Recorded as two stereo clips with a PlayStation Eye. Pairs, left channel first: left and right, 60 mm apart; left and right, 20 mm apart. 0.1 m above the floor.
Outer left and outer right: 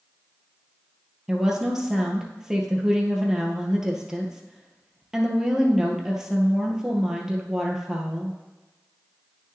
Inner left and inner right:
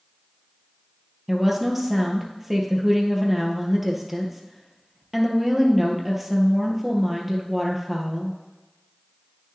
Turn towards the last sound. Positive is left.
turn(degrees=-10)  # may be behind; listen again after turning